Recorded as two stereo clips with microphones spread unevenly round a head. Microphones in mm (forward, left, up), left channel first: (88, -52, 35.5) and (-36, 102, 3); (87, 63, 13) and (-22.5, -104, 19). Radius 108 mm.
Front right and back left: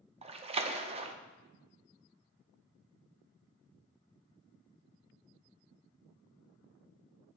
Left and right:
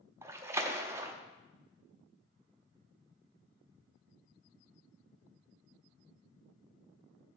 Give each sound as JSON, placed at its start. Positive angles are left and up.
{"t": 0.2, "sound": "a splash", "azimuth_deg": 160, "distance_m": 0.5}